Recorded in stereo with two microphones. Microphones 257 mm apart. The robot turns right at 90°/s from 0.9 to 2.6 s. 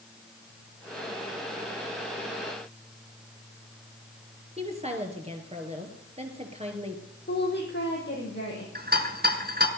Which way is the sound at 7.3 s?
40° left (ahead or behind).